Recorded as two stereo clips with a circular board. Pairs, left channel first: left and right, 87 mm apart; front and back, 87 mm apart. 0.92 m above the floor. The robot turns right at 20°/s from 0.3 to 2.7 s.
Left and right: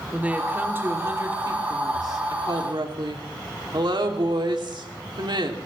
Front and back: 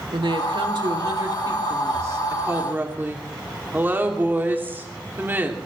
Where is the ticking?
No ticking in this recording.